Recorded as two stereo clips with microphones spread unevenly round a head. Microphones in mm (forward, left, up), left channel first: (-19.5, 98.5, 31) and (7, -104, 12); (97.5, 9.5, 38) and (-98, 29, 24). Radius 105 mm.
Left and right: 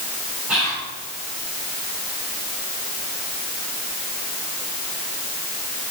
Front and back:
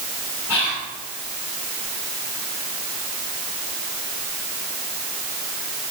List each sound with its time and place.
0.5 s whispering: straight ahead, 3 m